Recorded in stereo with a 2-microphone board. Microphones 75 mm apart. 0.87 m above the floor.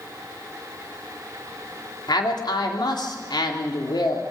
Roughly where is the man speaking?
Left.